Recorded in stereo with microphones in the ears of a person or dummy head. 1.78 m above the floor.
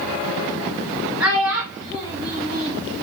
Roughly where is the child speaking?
Centre.